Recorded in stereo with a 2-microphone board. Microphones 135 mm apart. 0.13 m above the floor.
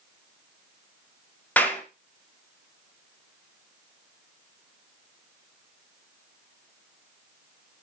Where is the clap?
10° left (ahead or behind), 1.4 m.